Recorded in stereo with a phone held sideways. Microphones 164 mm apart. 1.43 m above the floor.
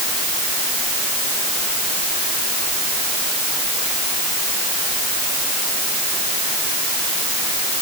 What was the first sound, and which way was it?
Only background noise.